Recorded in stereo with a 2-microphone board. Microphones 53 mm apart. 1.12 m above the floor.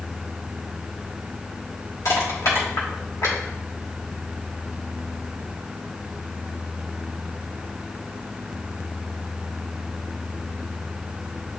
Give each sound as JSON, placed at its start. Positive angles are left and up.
{"t": 2.0, "sound": "crushing", "side_deg": 80, "distance_m": 3.0}